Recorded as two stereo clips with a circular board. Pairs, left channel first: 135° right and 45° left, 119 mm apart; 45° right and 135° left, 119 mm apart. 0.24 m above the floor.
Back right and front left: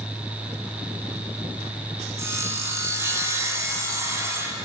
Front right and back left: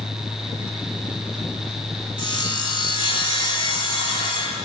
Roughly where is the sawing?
Ahead.